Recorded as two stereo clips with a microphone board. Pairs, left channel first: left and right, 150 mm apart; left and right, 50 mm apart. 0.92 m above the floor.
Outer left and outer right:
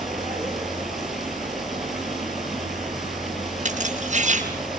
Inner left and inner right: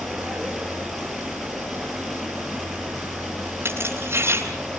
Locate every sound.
0.0 s running water: centre (ahead or behind), 7.5 m
3.6 s keys jangling: 55° right (ahead or behind), 7.5 m